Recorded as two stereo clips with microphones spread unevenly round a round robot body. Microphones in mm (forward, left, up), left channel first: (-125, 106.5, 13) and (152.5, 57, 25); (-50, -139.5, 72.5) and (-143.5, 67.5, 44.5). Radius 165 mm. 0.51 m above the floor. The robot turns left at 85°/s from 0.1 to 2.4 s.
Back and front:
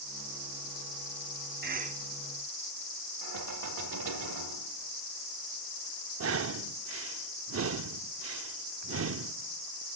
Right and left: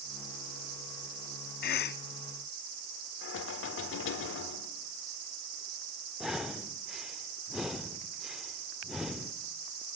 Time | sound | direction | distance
1.6 | a cough | 45° right | 0.9 m
3.2 | knocking | 35° right | 1.4 m
6.2 | breathing | 30° left | 0.7 m